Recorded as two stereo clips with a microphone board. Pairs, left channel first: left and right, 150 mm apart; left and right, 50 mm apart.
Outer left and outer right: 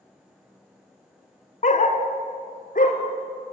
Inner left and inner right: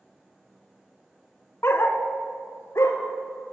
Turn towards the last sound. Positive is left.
turn(degrees=65)  # may be behind; listen again after turning